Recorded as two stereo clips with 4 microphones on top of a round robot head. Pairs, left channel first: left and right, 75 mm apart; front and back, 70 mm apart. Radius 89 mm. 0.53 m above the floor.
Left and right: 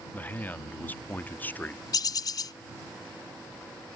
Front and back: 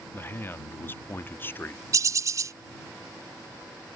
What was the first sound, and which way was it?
A man speaking, 40° left.